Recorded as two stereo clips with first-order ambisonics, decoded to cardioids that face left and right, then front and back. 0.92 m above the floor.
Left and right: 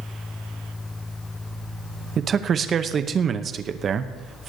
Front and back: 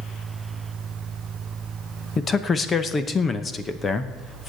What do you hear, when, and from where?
2.2 s a man speaking: 50° right, 0.7 m